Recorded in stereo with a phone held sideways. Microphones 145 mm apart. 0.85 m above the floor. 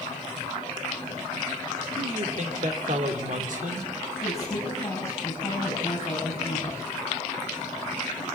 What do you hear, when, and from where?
2.0 s a man speaking: 60° right (ahead or behind), 3 m
4.2 s a woman speaking: 20° left (ahead or behind), 7 m